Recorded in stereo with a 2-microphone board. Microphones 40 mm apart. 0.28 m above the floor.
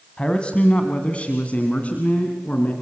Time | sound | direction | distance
0.2 | a man speaking | 25° left (ahead or behind) | 2 m